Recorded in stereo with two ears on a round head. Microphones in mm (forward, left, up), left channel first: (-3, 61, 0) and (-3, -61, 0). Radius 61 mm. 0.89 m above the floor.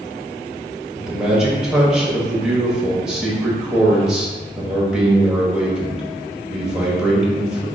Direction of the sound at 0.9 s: 5° right (ahead or behind).